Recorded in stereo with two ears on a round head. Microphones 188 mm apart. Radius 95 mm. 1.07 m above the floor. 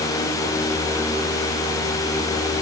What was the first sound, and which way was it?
Only background noise.